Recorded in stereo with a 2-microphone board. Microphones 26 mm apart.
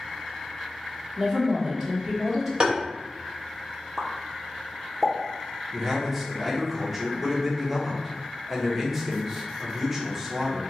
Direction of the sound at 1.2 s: 25° right (ahead or behind).